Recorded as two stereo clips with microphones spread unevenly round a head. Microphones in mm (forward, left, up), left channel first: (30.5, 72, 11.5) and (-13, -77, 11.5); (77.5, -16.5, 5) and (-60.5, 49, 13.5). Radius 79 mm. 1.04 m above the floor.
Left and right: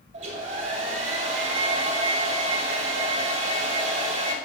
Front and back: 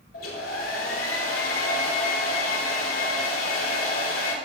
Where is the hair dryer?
60° right, 3 m.